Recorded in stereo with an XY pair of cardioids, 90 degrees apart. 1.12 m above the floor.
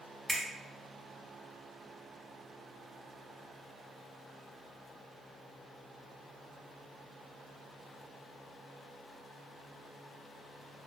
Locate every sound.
0.3 s a finger snap: 15° right, 1.2 m